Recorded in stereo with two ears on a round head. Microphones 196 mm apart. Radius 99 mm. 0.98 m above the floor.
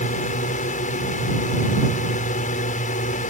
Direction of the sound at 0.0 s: 35° left (ahead or behind).